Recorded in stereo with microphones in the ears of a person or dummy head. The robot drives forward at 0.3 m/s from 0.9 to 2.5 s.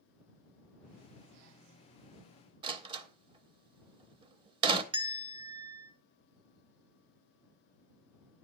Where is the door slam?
30° right (ahead or behind), 0.7 m.